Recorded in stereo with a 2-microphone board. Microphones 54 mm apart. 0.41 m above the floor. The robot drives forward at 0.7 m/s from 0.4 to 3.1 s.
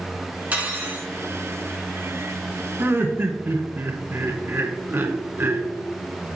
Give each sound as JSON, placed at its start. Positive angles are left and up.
{"t": 0.5, "sound": "cutlery clinking", "side_deg": -25, "distance_m": 2.5}
{"t": 2.8, "sound": "laughter", "side_deg": -45, "distance_m": 1.3}